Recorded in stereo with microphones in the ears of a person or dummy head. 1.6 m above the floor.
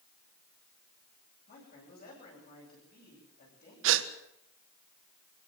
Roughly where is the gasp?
Right.